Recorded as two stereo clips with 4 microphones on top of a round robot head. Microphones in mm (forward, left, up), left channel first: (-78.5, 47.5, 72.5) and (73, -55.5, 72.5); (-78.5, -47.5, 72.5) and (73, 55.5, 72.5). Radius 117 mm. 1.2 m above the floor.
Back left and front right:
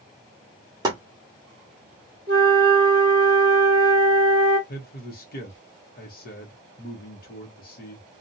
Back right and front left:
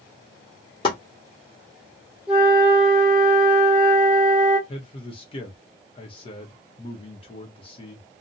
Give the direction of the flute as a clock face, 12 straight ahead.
1 o'clock.